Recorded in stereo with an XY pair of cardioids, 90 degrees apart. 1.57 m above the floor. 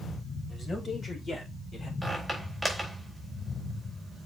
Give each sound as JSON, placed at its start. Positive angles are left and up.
{"t": 0.5, "sound": "a man speaking", "azimuth_deg": 40, "distance_m": 6.0}
{"t": 2.0, "sound": "a squeak", "azimuth_deg": 0, "distance_m": 4.0}